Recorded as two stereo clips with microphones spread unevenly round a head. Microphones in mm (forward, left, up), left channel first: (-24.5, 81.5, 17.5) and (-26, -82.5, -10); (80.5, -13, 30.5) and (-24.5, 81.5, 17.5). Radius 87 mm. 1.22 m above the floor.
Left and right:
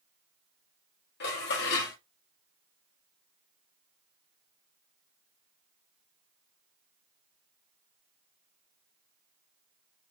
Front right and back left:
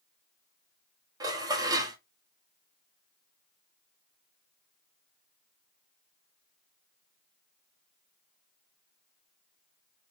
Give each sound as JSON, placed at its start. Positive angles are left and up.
{"t": 1.2, "sound": "dishes clattering", "azimuth_deg": 70, "distance_m": 1.2}